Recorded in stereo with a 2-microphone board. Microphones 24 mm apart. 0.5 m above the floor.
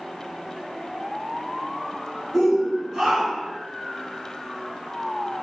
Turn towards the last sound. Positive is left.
turn(degrees=-20)  # may be behind; listen again after turning